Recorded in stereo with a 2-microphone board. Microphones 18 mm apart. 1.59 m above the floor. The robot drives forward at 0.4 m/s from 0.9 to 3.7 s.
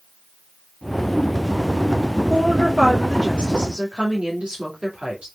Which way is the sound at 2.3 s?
80° right.